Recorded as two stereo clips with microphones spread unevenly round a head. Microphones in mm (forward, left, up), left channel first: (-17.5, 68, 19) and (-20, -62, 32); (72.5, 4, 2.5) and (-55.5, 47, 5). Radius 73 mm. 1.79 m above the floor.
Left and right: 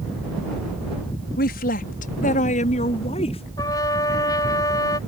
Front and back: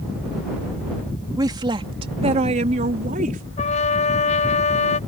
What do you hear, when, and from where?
1.4 s a woman speaking: 100° left; by 3.4 s 135° left
3.6 s a trumpet: 20° left